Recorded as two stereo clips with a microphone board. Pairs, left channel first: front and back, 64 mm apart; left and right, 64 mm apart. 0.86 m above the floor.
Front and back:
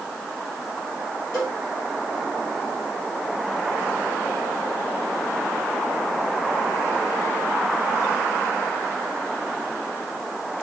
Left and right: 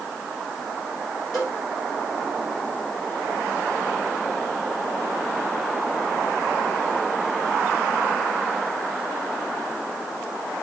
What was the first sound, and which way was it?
A cowbell, 45° left.